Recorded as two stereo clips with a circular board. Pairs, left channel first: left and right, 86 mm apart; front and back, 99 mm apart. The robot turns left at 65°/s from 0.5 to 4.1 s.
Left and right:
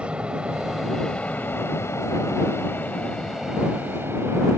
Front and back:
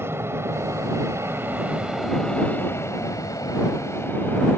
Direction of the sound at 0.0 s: 155° right.